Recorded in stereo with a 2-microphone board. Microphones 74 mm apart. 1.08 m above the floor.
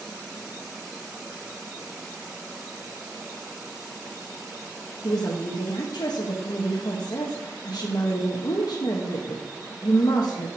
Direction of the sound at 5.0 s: 65° left (ahead or behind).